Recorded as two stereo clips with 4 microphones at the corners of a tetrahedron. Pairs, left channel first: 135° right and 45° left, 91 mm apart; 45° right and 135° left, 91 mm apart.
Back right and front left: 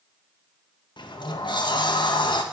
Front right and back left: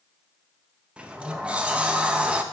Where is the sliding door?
150° right, 0.6 m.